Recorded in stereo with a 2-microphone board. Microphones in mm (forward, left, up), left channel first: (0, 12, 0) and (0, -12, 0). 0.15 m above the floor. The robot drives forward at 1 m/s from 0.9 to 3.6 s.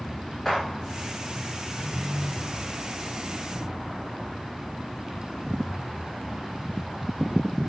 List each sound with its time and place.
0.5 s a gunshot: 5° left (ahead or behind), 6 m